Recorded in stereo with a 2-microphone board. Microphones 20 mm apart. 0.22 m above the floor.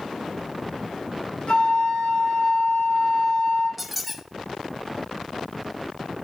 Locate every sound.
1.5 s a flute: 70° left (ahead or behind), 4.5 m
3.8 s a squeak: centre (ahead or behind), 1.0 m